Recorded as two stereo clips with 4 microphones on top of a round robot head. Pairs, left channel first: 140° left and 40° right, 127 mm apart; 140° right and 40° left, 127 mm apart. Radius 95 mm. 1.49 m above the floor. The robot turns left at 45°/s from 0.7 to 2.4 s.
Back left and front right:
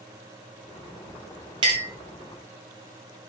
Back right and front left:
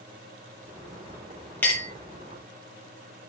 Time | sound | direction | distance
1.6 | a clink | 70° right | 0.7 m